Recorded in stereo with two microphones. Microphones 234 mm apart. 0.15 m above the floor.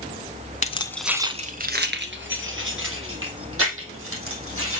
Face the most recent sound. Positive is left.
turn(degrees=-65)  # may be behind; listen again after turning